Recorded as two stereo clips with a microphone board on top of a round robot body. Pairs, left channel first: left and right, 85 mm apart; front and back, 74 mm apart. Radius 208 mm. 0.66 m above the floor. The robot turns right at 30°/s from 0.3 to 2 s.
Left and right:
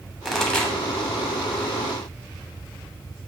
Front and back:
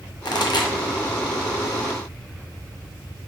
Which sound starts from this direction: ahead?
A pop, at 0.2 s.